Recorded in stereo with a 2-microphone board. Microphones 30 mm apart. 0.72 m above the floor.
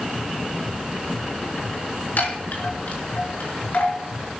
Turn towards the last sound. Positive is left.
turn(degrees=70)  # may be behind; listen again after turning